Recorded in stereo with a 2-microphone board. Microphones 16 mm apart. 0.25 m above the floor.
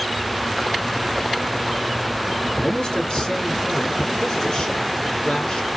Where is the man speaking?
45° left (ahead or behind), 3 m.